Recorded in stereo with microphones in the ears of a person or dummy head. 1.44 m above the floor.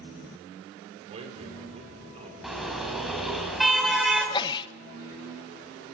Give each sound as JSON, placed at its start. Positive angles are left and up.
{"t": 1.1, "sound": "a man speaking", "side_deg": -35, "distance_m": 6.0}
{"t": 2.4, "sound": "a car horn", "side_deg": 0, "distance_m": 5.0}
{"t": 4.2, "sound": "a sneeze", "side_deg": 25, "distance_m": 1.4}